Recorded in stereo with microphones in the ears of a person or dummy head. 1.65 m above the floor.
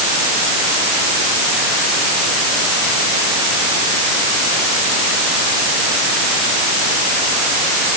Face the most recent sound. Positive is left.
No sound to turn to.